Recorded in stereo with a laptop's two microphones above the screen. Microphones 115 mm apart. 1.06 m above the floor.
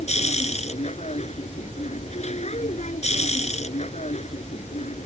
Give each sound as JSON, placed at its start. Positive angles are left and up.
{"t": 0.0, "sound": "a machine running", "side_deg": 75}